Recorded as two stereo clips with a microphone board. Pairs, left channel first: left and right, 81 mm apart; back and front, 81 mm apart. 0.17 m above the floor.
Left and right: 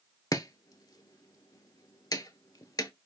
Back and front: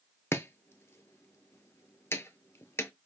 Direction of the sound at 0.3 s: 125° left.